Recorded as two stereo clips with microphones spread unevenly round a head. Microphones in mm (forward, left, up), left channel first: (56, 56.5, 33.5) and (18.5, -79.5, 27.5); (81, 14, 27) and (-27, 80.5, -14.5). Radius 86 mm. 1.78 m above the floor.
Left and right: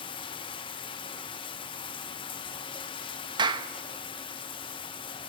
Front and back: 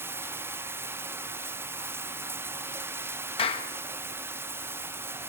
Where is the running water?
65° left, 1.0 m.